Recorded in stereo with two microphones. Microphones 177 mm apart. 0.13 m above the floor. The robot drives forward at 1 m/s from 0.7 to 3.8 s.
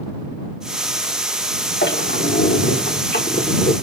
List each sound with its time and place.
1.8 s a squeak: 85° left, 3 m; by 3.7 s 55° left (ahead or behind), 3.5 m